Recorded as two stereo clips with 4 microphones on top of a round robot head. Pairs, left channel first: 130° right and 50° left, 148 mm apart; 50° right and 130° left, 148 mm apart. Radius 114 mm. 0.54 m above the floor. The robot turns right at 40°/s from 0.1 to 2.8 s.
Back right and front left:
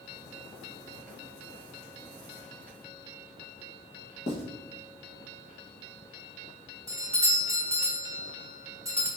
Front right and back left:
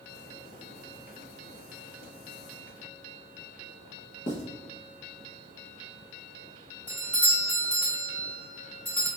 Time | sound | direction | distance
4.3 | writing | 85° right | 1.0 m
6.9 | a doorbell | 15° left | 1.6 m